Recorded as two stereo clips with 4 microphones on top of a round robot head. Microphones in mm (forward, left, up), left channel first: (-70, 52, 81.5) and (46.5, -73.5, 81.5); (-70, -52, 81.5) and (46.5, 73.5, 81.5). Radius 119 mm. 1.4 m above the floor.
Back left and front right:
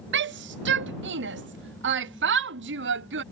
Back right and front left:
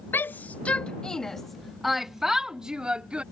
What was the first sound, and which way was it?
A shout, 55° right.